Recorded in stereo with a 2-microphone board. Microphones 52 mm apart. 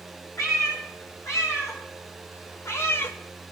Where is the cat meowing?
85° left, 4.5 m; by 3.2 s 50° left (ahead or behind), 0.6 m.